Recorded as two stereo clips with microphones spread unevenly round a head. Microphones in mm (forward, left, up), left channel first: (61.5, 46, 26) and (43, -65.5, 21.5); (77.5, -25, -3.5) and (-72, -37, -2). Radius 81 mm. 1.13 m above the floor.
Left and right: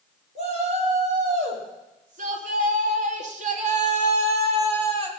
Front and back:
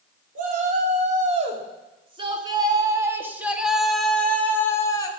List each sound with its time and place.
0.3 s a shout: 140° right, 4 m; by 5.1 s 60° right, 3 m